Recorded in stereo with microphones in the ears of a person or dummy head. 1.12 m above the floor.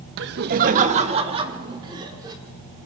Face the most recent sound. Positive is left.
turn(degrees=-20)  # may be behind; listen again after turning